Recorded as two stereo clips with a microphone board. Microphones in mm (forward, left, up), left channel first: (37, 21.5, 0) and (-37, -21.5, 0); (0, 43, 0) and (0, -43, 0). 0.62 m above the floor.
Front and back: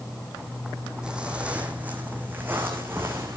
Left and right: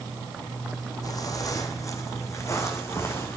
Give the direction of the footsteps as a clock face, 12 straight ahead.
8 o'clock.